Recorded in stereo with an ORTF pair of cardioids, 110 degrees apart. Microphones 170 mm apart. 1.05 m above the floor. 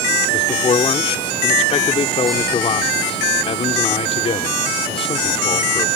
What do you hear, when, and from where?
0.3 s a man speaking: 35° left